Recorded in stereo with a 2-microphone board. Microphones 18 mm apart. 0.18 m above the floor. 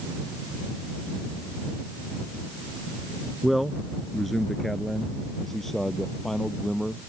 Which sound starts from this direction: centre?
A man speaking, at 3.4 s.